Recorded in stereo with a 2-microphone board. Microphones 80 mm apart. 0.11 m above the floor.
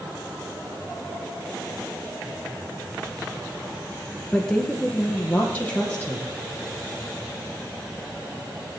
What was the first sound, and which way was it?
A woman speaking, 10° left (ahead or behind).